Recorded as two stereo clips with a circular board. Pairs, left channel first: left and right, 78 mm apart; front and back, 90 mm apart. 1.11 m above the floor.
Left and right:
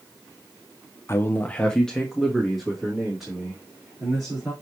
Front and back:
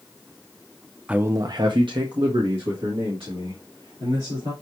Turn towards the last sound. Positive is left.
turn(degrees=-175)